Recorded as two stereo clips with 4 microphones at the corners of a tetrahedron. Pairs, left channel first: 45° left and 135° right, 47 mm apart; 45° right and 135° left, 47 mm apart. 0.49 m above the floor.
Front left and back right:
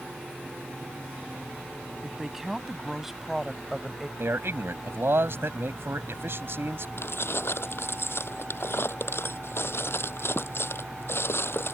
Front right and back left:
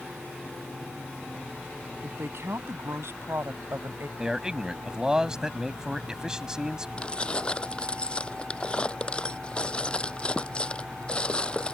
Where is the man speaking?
150° right.